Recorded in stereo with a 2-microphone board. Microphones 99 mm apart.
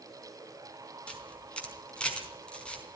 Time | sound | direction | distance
1.1 | a camera shutter | 10° left (ahead or behind) | 4.5 m